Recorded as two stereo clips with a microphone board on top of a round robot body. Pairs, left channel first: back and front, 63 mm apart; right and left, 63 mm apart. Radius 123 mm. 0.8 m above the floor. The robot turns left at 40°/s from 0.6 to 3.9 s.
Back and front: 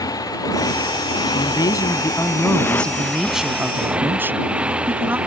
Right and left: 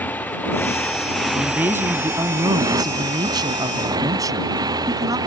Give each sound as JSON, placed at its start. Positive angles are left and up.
{"t": 0.0, "sound": "a motorcycle", "azimuth_deg": -155}
{"t": 1.3, "sound": "a man speaking", "azimuth_deg": 165}